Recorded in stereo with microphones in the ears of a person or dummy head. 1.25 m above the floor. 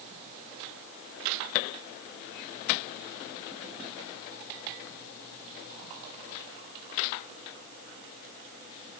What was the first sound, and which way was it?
Only background noise.